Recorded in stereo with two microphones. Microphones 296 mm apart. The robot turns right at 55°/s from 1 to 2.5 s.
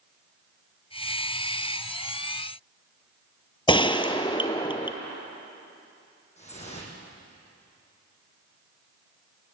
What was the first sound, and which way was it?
A gunshot, 20° left (ahead or behind).